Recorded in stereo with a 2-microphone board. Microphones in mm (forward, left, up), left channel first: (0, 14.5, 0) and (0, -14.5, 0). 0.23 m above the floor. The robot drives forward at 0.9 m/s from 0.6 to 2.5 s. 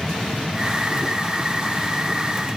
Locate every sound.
Only background noise.